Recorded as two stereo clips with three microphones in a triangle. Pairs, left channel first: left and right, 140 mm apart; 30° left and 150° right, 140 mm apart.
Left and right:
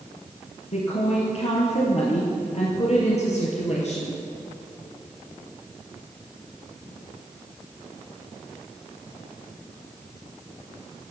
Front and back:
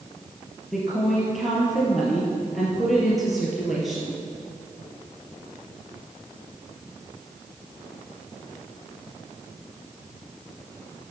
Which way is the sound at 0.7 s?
120° left.